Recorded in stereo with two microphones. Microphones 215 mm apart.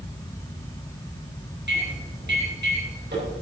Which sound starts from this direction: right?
A microwave, at 1.7 s.